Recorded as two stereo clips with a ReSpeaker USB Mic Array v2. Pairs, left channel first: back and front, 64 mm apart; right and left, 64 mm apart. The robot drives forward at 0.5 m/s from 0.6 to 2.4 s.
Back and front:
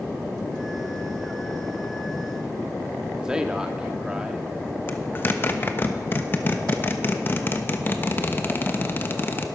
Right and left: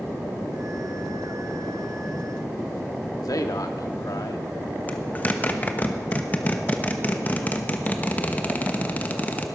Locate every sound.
3.2 s a man speaking: 80° right, 1.6 m
4.9 s a zipper: 140° right, 1.1 m